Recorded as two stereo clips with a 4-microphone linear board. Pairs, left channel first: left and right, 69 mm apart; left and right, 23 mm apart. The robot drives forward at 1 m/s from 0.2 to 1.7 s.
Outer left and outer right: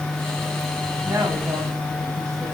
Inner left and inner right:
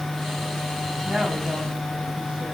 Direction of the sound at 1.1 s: 45° right (ahead or behind).